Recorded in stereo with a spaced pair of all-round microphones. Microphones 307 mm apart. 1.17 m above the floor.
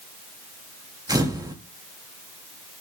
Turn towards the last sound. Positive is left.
turn(degrees=-10)  # may be behind; listen again after turning